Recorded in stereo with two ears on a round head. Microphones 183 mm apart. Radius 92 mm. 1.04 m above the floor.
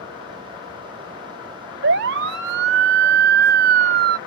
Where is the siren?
60° right (ahead or behind); by 4.2 s 50° right (ahead or behind).